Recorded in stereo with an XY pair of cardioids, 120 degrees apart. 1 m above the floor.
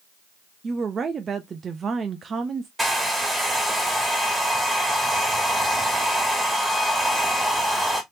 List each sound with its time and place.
0.6 s a woman speaking: 35° right, 0.6 m
2.8 s a hair dryer: 10° right, 1.8 m